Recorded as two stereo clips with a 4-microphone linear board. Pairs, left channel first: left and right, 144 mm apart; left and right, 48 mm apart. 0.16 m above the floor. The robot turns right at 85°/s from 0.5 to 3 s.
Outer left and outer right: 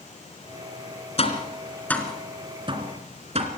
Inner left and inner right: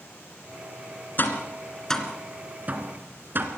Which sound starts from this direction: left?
Tapping, at 1.2 s.